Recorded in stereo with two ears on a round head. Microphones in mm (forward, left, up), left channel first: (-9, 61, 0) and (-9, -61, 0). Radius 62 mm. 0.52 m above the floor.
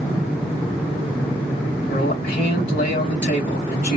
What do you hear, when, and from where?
1.9 s a man speaking: 65° left (ahead or behind), 3 m